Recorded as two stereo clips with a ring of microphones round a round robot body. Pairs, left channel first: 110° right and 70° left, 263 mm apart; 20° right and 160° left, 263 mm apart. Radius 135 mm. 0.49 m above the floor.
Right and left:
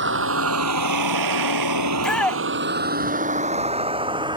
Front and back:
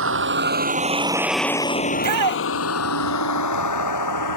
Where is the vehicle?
115° left; by 4.4 s 5° right.